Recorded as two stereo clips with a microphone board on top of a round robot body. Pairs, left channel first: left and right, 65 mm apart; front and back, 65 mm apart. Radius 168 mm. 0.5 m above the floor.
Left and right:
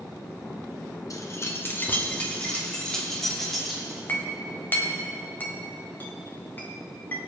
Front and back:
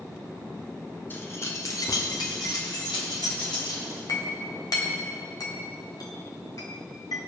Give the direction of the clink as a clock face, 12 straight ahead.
11 o'clock.